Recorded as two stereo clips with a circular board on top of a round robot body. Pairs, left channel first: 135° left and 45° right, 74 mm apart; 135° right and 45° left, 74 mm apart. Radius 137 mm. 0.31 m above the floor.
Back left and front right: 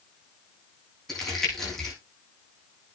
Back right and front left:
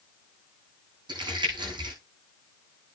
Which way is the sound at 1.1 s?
50° left.